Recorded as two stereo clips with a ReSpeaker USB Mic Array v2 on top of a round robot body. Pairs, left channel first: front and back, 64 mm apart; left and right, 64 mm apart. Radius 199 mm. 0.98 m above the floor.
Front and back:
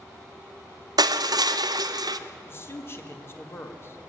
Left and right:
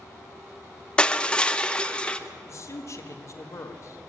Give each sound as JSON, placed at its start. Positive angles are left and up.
{"t": 1.0, "sound": "crushing", "azimuth_deg": 165, "distance_m": 0.7}
{"t": 2.5, "sound": "a man speaking", "azimuth_deg": 50, "distance_m": 1.8}